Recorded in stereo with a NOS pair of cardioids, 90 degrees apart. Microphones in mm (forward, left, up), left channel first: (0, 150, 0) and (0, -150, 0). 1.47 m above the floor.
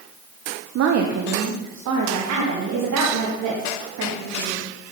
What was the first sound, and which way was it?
A woman speaking, 55° right.